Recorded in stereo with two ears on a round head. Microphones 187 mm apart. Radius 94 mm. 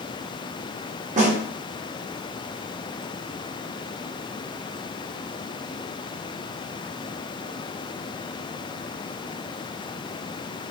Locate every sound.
1.2 s a snare drum: 35° right (ahead or behind), 0.9 m